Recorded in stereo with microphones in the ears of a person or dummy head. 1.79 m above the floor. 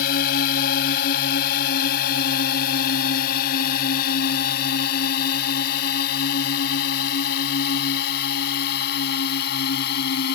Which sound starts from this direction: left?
A drone, at 0.0 s.